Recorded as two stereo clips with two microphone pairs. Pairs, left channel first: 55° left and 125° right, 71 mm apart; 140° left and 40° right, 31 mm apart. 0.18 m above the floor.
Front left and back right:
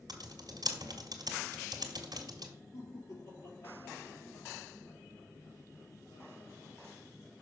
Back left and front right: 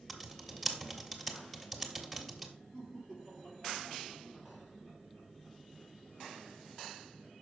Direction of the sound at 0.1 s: 130° right.